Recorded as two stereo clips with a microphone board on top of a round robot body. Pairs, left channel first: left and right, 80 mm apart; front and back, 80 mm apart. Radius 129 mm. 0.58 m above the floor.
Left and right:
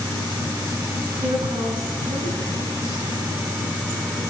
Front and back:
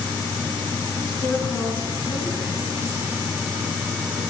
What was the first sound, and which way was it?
A woman speaking, 70° right.